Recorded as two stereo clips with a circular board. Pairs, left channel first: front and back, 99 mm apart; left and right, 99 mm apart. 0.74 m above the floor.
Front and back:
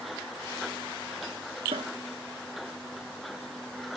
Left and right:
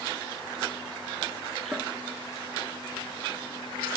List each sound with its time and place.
1.7 s a cupboard door: 170° right